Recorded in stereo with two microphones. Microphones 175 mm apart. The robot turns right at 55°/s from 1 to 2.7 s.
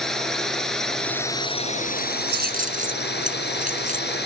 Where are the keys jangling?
70° right (ahead or behind); by 4.2 s 50° right (ahead or behind).